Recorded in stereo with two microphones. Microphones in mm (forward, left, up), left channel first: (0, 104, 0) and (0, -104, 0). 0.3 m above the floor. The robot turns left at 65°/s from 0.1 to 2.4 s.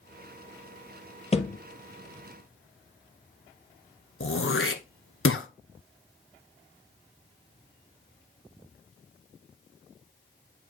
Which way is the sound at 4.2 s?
80° left.